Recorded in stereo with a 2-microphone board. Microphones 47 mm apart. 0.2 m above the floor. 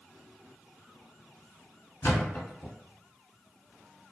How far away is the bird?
I don't hear a bird.